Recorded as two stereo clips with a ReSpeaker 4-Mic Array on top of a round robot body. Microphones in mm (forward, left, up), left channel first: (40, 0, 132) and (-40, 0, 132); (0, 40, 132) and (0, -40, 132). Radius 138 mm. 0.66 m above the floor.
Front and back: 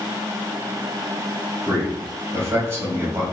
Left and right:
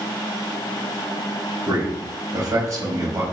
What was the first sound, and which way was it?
A man speaking, 130° right.